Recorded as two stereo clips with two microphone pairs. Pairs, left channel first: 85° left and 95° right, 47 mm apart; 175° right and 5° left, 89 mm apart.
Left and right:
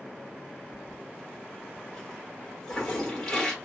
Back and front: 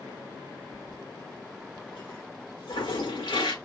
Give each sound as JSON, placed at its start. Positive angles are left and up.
{"t": 0.7, "sound": "a toilet flushing", "azimuth_deg": 165, "distance_m": 1.4}